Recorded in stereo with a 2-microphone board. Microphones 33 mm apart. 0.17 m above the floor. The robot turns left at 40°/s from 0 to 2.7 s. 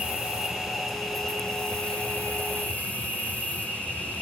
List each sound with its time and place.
0.0 s an insect: 140° right, 3.5 m; by 4.2 s 110° left, 3.5 m